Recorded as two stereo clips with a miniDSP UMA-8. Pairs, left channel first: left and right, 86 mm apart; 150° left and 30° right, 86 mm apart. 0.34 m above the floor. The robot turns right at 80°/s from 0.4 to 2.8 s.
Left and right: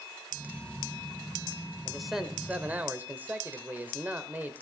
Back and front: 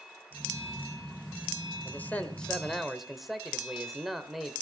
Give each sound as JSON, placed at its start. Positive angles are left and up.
{"t": 1.9, "sound": "a man speaking", "azimuth_deg": 170, "distance_m": 1.5}